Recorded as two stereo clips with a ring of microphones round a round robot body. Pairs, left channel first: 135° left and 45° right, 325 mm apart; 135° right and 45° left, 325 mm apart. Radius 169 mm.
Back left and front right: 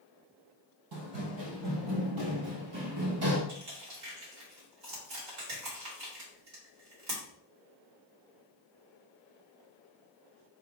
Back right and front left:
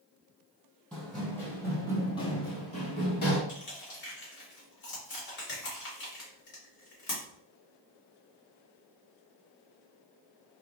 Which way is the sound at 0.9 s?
45° right.